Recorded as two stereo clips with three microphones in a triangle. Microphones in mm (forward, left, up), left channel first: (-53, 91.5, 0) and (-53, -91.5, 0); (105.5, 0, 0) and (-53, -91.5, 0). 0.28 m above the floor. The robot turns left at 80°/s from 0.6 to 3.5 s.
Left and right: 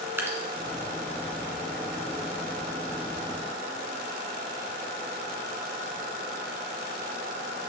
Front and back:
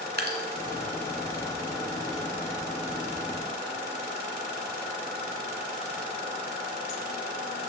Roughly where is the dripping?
Behind.